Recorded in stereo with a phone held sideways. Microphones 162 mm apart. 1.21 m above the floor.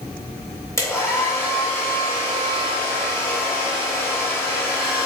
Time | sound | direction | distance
0.8 | a hair dryer | 20° left (ahead or behind) | 2.5 m